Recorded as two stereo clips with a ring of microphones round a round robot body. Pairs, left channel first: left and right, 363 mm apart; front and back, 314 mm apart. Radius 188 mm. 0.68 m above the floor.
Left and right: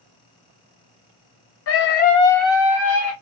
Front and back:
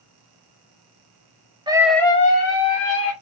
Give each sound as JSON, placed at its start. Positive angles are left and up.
{"t": 1.7, "sound": "a scream", "azimuth_deg": 110, "distance_m": 0.6}